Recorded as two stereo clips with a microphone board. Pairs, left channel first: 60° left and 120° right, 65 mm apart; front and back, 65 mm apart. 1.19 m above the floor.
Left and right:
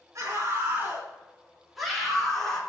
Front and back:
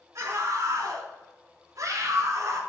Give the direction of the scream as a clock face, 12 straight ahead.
5 o'clock.